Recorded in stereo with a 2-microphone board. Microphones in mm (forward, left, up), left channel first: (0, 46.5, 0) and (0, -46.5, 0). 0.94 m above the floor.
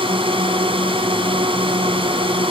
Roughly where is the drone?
Right.